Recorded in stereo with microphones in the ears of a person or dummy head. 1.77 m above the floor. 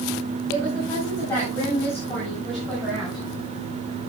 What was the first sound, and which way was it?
A woman speaking, 20° left (ahead or behind).